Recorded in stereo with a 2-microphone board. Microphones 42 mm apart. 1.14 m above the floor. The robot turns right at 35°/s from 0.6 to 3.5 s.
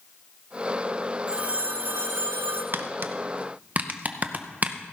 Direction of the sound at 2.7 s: 65° right (ahead or behind).